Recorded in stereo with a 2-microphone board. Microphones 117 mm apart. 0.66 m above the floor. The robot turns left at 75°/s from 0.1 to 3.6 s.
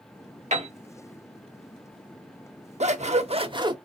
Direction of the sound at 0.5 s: 90° right.